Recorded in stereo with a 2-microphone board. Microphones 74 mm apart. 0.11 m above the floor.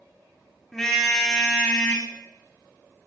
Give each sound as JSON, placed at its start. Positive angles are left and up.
{"t": 0.7, "sound": "a car horn", "side_deg": 5, "distance_m": 4.5}